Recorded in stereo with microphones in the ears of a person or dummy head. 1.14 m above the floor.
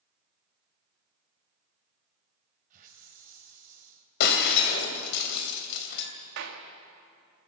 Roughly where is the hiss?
Right.